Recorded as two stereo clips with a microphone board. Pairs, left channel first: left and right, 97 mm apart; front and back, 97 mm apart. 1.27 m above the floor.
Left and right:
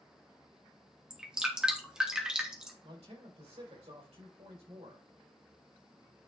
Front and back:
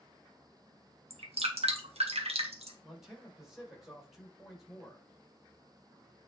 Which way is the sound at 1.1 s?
170° right.